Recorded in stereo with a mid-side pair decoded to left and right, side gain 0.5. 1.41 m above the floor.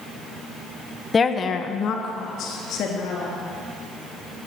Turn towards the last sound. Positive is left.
turn(degrees=75)